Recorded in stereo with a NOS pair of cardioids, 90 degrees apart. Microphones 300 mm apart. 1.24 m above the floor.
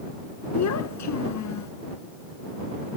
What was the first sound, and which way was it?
A child speaking, 60° left.